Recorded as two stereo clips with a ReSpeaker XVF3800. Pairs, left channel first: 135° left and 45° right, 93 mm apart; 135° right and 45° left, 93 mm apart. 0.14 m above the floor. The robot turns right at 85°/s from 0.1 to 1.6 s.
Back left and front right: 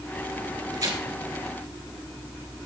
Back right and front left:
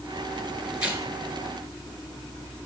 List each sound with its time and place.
0.7 s tearing paper: 35° right, 2 m; by 1.0 s 15° right, 2 m